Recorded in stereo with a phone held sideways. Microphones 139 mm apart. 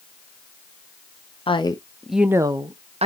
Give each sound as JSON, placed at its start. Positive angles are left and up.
{"t": 1.5, "sound": "a woman speaking", "side_deg": 40, "distance_m": 0.6}